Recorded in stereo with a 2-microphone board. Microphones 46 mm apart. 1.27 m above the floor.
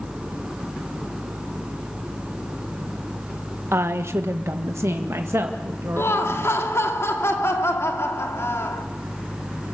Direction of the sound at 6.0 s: 65° left (ahead or behind).